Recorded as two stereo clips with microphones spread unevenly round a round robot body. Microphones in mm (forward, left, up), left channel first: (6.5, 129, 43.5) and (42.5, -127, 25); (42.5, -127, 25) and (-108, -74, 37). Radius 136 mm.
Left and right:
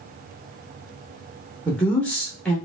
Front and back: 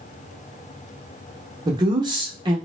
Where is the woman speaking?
175° right, 0.8 m.